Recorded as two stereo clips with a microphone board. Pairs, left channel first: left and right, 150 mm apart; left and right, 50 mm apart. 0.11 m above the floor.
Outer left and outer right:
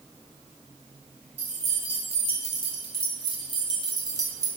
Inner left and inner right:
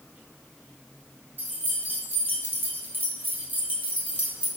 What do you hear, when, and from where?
1.4 s keys jangling: 45° right (ahead or behind), 1.7 m; by 4.5 s 25° right (ahead or behind), 1.4 m